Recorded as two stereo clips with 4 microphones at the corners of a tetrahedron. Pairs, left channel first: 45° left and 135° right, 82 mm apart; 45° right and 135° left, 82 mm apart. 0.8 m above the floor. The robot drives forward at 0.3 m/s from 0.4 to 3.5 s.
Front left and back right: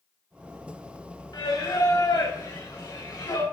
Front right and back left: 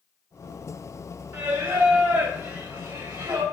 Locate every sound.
1.3 s singing: 65° left, 2.5 m; by 3.4 s 80° left, 2.5 m